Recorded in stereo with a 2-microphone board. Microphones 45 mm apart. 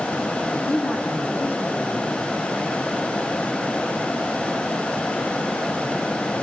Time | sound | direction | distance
0.5 | a man speaking | 50° left (ahead or behind) | 9 m